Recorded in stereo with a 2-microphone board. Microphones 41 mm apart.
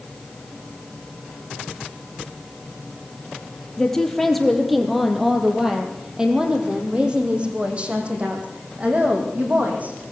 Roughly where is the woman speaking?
Centre.